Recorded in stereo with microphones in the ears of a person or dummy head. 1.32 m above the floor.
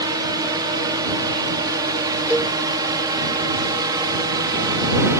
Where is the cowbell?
5° right (ahead or behind).